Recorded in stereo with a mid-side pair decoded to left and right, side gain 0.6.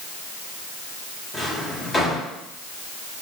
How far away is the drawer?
About 3.5 m.